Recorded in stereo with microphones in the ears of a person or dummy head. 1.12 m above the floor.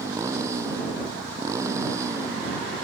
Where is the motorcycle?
10° right (ahead or behind).